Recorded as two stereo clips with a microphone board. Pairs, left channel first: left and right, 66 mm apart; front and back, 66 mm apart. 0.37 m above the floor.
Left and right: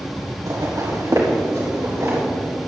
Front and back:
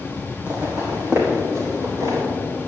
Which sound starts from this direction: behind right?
Footsteps, at 0.5 s.